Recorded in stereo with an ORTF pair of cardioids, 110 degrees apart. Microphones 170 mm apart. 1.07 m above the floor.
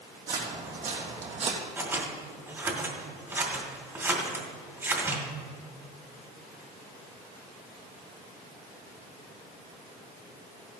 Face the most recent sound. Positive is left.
turn(degrees=-15)